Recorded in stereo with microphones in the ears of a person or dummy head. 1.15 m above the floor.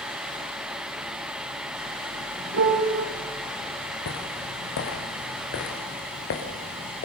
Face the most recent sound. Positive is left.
turn(degrees=50)  # may be behind; listen again after turning